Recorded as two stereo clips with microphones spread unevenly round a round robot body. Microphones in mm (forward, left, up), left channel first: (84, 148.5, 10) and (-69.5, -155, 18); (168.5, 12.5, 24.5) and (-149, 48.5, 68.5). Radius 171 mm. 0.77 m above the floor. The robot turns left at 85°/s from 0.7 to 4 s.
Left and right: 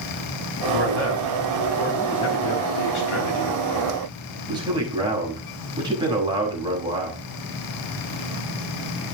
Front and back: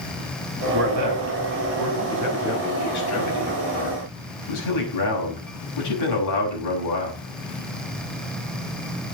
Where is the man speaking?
120° right, 6.5 m; by 7.2 s 40° right, 6.5 m.